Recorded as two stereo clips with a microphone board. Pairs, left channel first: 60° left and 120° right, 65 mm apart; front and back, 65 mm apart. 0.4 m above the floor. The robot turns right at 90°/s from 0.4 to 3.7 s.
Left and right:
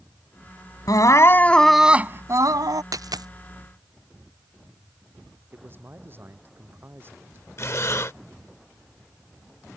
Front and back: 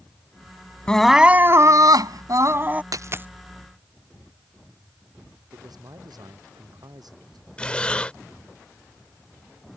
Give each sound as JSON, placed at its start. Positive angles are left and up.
{"t": 0.9, "sound": "crying", "azimuth_deg": 75}
{"t": 2.9, "sound": "a dropped coin", "azimuth_deg": -150}
{"t": 5.5, "sound": "a man speaking", "azimuth_deg": -175}
{"t": 7.6, "sound": "breathing", "azimuth_deg": 65}